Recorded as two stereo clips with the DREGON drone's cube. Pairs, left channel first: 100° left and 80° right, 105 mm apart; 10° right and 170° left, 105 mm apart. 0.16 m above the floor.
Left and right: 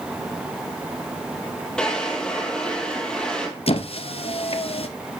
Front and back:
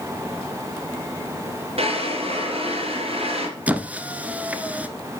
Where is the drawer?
Straight behind, 2 m.